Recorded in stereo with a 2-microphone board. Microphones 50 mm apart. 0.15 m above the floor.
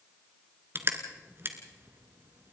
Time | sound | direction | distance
0.8 | crushing | 45° right (ahead or behind) | 2 m